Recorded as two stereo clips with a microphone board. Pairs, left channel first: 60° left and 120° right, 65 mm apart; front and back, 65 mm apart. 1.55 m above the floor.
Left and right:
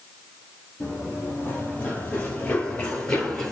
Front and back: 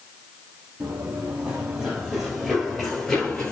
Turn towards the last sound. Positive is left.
turn(degrees=15)